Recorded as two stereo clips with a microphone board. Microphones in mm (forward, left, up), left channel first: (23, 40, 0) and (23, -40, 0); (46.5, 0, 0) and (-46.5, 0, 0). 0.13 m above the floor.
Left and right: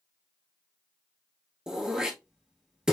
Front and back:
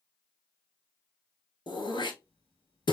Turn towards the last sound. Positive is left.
turn(degrees=-10)